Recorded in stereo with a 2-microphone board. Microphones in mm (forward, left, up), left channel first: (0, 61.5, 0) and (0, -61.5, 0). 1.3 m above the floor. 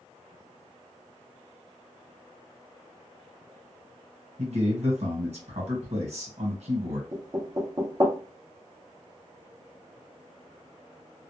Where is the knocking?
30° right (ahead or behind), 0.6 m.